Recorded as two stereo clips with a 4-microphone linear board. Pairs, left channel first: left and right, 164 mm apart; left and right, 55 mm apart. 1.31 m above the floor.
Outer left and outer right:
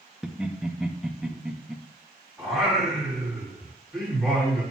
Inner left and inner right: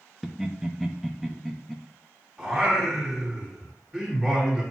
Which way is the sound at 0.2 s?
5° right (ahead or behind).